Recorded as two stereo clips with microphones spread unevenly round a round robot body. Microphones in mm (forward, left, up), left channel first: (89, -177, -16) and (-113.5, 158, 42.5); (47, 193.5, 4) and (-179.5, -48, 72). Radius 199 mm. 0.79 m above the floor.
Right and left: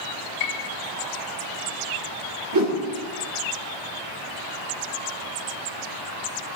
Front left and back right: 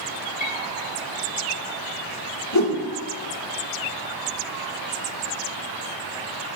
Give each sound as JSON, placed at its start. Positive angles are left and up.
{"t": 0.4, "sound": "a piano", "azimuth_deg": -30, "distance_m": 1.1}
{"t": 2.5, "sound": "a whoosh", "azimuth_deg": 70, "distance_m": 3.0}